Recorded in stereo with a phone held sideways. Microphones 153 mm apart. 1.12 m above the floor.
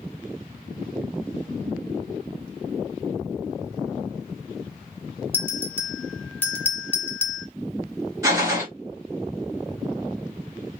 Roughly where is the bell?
Centre.